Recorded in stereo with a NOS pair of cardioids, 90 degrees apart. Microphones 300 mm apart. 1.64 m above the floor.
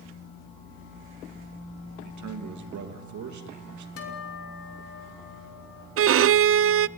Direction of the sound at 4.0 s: 50° left.